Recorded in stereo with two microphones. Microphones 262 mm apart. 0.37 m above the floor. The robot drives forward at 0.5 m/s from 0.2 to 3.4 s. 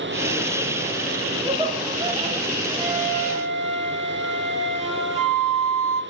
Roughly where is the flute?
Right.